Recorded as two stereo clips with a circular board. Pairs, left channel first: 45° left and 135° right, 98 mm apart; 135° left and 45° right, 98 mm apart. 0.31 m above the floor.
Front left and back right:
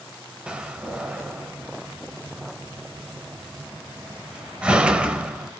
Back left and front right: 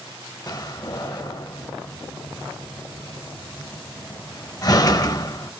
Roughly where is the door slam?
Behind left.